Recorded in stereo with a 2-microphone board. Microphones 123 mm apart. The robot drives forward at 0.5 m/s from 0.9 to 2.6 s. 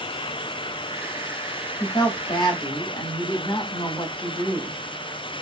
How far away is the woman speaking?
About 0.8 m.